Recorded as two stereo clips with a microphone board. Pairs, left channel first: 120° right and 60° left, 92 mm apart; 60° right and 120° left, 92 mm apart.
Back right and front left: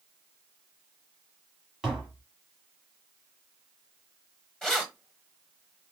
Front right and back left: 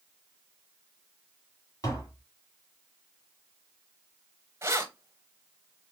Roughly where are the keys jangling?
Behind.